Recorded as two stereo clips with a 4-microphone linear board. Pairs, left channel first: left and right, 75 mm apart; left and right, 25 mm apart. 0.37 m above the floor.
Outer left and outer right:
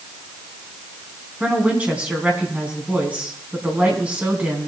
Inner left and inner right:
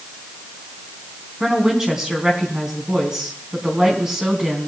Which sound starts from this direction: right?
A woman speaking, at 1.4 s.